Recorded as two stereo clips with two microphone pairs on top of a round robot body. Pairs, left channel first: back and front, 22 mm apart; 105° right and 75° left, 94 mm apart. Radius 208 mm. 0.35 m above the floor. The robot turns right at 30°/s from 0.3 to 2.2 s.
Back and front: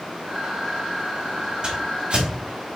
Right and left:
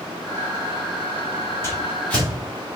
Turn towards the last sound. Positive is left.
turn(degrees=-25)